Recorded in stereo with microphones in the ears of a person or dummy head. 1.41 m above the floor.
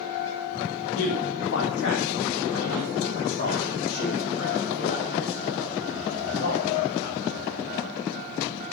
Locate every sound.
0.9 s a man speaking: 70° left (ahead or behind), 1.6 m; by 7.2 s 40° left (ahead or behind), 5 m